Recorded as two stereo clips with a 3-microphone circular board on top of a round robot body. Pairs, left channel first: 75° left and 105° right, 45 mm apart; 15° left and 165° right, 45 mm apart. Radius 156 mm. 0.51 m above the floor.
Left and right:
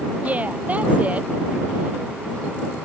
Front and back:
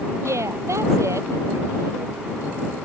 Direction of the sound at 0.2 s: 165° right.